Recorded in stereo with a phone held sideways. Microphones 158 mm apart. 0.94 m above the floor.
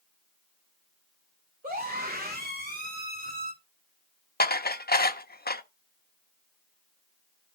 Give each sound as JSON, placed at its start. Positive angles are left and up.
{"t": 1.6, "sound": "a scream", "side_deg": -70, "distance_m": 2.5}
{"t": 4.4, "sound": "dishes clattering", "side_deg": 85, "distance_m": 0.7}